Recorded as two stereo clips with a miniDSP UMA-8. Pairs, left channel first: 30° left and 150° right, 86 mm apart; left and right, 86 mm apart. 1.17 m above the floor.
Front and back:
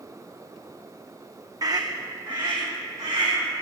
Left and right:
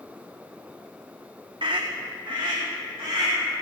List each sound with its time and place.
1.6 s a scream: 105° right, 0.5 m; by 3.4 s 120° right, 2 m